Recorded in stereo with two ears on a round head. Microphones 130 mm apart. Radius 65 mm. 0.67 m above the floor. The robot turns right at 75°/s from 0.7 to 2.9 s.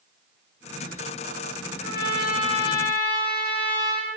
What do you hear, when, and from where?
1.8 s a trumpet: 85° left, 5 m; by 4.1 s 165° left, 5 m